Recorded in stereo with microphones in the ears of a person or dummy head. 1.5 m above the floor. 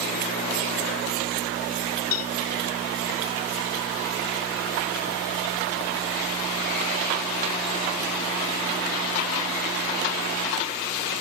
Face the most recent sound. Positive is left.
turn(degrees=75)  # may be behind; listen again after turning